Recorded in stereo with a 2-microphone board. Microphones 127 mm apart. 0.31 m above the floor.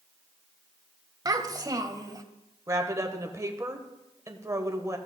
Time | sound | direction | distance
1.2 | a child speaking | 30° right (ahead or behind) | 0.7 m
2.7 | a woman speaking | 25° right (ahead or behind) | 0.9 m